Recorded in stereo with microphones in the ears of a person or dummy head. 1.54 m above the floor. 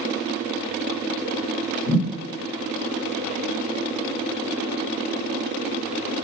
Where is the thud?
20° left (ahead or behind), 1.5 m.